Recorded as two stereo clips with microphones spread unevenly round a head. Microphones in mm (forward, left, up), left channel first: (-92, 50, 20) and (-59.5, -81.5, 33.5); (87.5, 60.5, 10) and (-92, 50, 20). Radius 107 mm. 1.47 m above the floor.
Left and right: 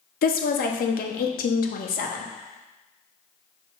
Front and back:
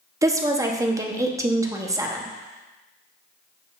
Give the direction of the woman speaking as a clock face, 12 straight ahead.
8 o'clock.